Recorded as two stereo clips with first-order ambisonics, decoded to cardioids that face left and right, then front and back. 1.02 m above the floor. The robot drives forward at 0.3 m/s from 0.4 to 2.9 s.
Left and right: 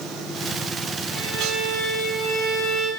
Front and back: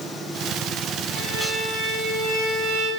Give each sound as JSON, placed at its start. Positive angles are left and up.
{"t": 1.1, "sound": "a violin", "azimuth_deg": 160, "distance_m": 10.0}